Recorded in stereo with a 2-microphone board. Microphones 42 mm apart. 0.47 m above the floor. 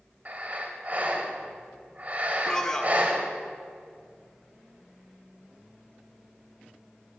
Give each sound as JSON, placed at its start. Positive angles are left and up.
{"t": 0.2, "sound": "breathing", "side_deg": -40, "distance_m": 1.7}
{"t": 2.5, "sound": "a man speaking", "side_deg": 15, "distance_m": 1.0}